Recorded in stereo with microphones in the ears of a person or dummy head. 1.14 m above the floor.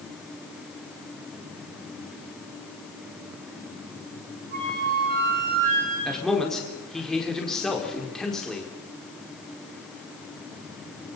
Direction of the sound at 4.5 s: 55° right (ahead or behind).